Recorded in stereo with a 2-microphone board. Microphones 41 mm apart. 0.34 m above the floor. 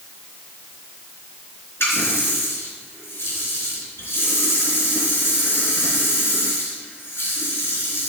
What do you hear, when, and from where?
1.8 s a running tap: 75° left (ahead or behind), 3 m